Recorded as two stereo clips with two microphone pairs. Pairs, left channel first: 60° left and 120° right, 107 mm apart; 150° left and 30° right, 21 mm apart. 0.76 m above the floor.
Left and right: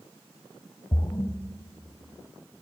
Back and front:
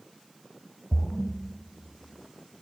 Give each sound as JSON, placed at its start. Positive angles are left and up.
{"t": 0.9, "sound": "a splash", "azimuth_deg": 95, "distance_m": 0.9}